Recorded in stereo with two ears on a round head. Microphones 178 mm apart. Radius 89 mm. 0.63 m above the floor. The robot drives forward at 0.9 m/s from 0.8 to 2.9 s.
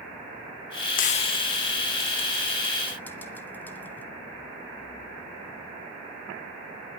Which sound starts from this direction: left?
Frying, at 1.0 s.